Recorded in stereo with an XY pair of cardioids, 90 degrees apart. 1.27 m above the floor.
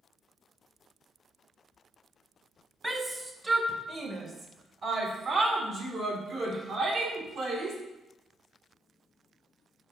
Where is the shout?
20° right, 1.4 m; by 7.8 s 70° right, 4 m.